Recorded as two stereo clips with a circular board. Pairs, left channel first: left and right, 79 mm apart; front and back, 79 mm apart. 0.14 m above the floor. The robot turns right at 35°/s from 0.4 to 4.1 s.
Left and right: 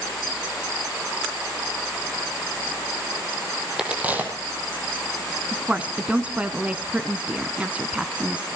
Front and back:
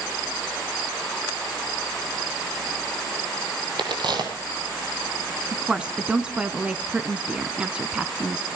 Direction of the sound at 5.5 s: 130° right.